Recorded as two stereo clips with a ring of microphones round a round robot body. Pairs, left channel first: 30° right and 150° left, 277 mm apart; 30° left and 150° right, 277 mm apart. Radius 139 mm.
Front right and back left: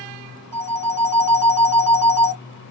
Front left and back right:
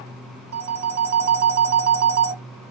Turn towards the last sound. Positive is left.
turn(degrees=-110)